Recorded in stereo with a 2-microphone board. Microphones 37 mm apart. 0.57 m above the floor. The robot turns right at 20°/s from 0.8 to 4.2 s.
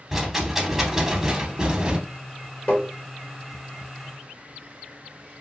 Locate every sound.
0.1 s a rattle: 10° right (ahead or behind), 0.6 m; by 2.0 s 25° right (ahead or behind), 0.6 m
2.7 s tapping: 35° left (ahead or behind), 1.5 m